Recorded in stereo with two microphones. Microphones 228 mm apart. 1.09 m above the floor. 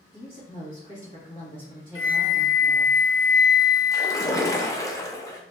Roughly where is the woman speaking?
Left.